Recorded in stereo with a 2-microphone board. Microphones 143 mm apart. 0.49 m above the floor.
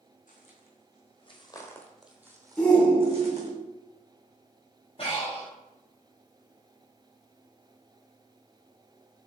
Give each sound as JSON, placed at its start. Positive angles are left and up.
{"t": 0.3, "sound": "footsteps", "side_deg": 65, "distance_m": 1.5}
{"t": 2.6, "sound": "a shout", "side_deg": 5, "distance_m": 1.4}
{"t": 5.0, "sound": "breathing", "side_deg": 40, "distance_m": 1.8}